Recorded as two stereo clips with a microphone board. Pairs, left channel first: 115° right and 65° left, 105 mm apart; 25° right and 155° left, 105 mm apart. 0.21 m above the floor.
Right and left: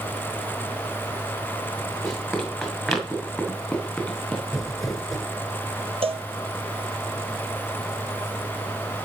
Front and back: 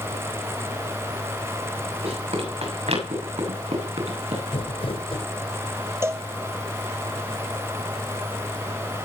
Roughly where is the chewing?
I don't hear chewing.